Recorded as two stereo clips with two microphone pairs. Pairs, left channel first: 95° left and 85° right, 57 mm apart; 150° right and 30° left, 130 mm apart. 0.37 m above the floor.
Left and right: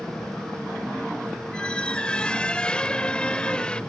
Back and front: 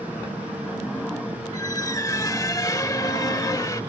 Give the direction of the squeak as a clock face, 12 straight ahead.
7 o'clock.